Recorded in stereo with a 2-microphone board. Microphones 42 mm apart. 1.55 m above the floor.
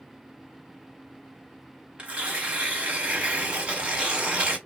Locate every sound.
2.0 s tearing paper: 25° right (ahead or behind), 1.0 m